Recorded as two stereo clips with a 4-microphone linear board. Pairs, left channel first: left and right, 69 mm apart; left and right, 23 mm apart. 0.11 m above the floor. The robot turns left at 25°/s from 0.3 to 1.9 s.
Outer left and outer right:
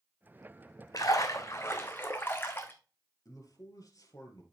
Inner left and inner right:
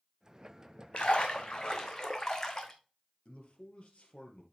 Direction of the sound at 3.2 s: 55° left (ahead or behind).